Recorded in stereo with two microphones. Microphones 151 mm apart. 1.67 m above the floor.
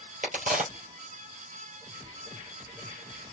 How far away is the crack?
About 3.5 m.